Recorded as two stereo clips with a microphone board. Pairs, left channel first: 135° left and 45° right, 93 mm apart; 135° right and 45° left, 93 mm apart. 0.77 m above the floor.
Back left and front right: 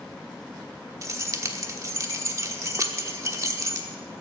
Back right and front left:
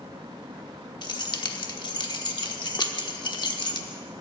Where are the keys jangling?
100° right, 1.1 m.